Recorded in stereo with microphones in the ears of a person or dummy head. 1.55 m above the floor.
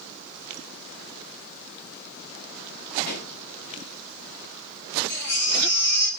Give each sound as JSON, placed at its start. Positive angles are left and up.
{"t": 3.1, "sound": "a pop", "side_deg": 65, "distance_m": 4.0}
{"t": 5.1, "sound": "a baby crying", "side_deg": 65, "distance_m": 3.5}